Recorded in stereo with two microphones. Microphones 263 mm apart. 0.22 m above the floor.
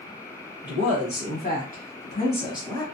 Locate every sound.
0.6 s a woman speaking: 40° left (ahead or behind), 1.5 m; by 2.8 s 10° left (ahead or behind), 1.2 m